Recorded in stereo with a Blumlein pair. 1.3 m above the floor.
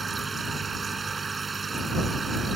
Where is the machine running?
15° right.